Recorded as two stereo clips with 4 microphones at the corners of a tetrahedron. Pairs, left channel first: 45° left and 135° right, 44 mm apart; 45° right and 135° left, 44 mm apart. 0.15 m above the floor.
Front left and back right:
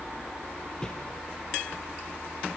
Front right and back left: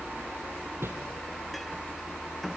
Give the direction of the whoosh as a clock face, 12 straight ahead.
8 o'clock.